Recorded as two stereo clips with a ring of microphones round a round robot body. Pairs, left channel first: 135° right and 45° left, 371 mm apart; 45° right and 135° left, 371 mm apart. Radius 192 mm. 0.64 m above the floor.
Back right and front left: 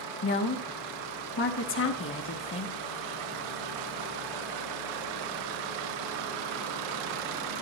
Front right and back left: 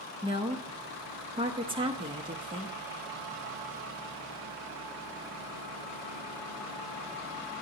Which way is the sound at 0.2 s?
160° right.